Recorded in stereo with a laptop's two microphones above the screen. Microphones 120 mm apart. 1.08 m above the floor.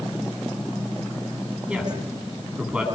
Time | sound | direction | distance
1.7 | a woman speaking | 10° right (ahead or behind) | 8.5 m